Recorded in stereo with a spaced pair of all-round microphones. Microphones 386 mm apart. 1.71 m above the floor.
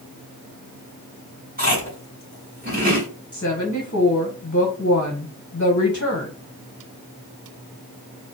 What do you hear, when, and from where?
1.6 s chewing: 25° right (ahead or behind), 2.5 m
3.3 s a woman speaking: 35° left (ahead or behind), 1.1 m